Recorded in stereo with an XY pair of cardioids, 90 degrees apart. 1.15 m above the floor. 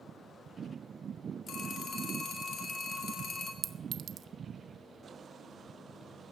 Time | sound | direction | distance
1.5 | a phone ringing | 60° left | 2 m
3.6 | a clink | 65° right | 0.7 m